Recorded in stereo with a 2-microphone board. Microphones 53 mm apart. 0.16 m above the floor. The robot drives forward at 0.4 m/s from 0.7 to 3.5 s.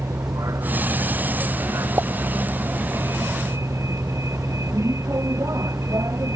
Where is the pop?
60° right (ahead or behind).